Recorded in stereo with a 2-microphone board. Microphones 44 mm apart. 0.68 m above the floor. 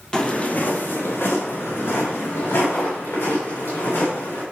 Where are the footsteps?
15° left (ahead or behind), 1.3 m; by 4.4 s 70° left (ahead or behind), 5 m.